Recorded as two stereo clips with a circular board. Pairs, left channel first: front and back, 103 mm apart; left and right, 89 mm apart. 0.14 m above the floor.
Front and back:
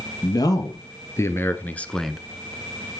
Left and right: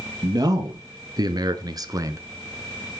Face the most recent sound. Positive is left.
turn(degrees=-100)